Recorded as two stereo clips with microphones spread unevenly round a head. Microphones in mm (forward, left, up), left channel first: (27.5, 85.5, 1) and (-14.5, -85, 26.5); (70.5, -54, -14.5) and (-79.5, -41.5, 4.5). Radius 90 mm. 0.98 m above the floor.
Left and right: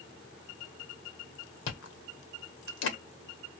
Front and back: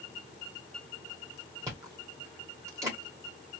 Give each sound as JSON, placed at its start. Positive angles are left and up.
{"t": 1.7, "sound": "chewing", "azimuth_deg": 105, "distance_m": 0.9}